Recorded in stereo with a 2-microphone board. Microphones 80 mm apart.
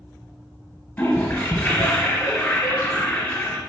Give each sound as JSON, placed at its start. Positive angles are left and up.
{"t": 1.0, "sound": "a toilet flushing", "side_deg": 25, "distance_m": 1.1}